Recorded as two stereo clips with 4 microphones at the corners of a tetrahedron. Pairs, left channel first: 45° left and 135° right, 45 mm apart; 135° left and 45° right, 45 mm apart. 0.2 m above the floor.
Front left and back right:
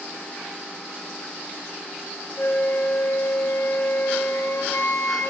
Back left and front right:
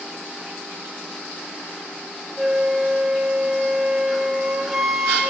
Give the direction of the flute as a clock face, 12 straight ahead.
11 o'clock.